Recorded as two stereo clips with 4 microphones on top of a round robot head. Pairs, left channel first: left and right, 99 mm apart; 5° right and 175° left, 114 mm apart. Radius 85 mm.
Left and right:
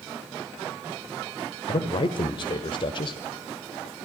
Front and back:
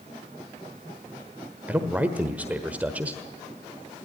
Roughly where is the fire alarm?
I don't hear a fire alarm.